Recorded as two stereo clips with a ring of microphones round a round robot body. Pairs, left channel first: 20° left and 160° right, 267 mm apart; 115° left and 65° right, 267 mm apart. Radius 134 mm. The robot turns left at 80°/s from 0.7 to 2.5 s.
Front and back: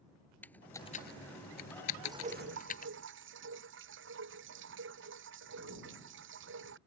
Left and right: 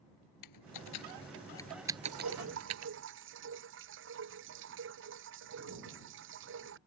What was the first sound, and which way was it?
Typing on a keyboard, 105° left.